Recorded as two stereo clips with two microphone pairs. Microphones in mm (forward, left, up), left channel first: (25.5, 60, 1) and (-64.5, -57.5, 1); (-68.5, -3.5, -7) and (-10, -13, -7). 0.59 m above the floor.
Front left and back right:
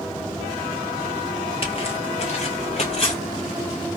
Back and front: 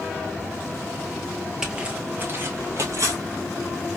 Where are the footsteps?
70° left, 0.7 m; by 3.2 s 15° left, 1.1 m.